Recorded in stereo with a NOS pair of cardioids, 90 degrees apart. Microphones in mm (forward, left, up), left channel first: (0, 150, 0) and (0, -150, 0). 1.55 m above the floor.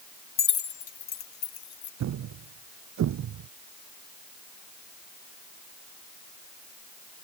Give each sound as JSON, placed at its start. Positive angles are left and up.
{"t": 0.4, "sound": "keys jangling", "azimuth_deg": 45}
{"t": 2.0, "sound": "a thud", "azimuth_deg": -70}